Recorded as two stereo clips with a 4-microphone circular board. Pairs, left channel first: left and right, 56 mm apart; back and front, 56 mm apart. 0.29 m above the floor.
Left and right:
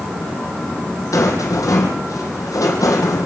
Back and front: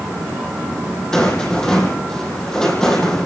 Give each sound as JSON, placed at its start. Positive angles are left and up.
{"t": 1.1, "sound": "a rattle", "azimuth_deg": 100, "distance_m": 6.0}